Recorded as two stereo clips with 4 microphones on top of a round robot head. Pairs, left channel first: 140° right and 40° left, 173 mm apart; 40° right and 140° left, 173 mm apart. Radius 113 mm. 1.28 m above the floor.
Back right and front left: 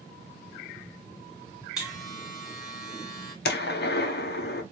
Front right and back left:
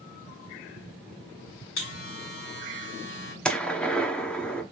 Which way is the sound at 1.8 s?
50° right.